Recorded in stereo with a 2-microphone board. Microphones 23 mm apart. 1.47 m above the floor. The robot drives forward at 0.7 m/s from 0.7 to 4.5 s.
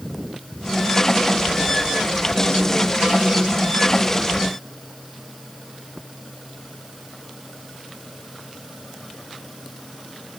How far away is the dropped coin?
No dropped coin in this recording.